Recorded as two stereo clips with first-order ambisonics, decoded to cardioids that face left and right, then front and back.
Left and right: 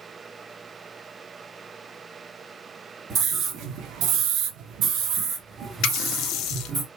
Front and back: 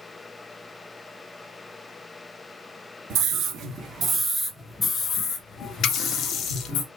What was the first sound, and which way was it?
A scream, 145° right.